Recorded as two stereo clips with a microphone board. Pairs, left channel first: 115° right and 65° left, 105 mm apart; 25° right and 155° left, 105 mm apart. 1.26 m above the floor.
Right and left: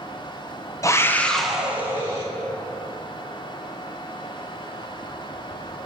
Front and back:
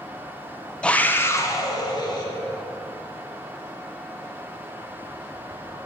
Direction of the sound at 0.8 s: 95° right.